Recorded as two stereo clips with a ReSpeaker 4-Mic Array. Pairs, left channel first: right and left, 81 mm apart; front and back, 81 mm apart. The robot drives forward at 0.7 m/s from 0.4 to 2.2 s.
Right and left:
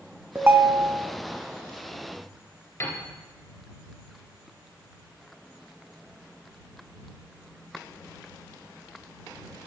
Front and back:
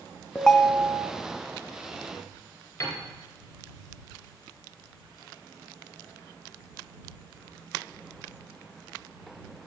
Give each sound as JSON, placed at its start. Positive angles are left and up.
{"t": 0.3, "sound": "a ringtone", "azimuth_deg": 60, "distance_m": 0.5}
{"t": 2.8, "sound": "a piano", "azimuth_deg": -50, "distance_m": 2.5}